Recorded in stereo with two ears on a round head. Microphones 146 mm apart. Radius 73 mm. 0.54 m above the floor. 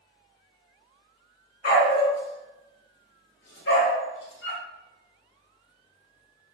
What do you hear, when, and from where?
1.6 s a dog barking: 65° left (ahead or behind), 1.3 m; by 4.6 s 80° left, 2.5 m